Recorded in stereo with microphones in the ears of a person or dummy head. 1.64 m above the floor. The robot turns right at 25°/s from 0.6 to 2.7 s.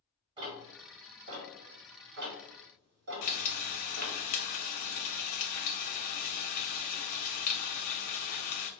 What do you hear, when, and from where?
0.4 s ticking: 35° right (ahead or behind), 1.4 m; by 4.2 s 60° right (ahead or behind), 1.4 m
3.2 s frying: 40° left (ahead or behind), 0.5 m